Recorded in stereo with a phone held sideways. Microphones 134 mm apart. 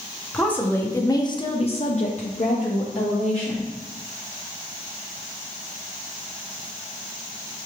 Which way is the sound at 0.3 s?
10° left (ahead or behind).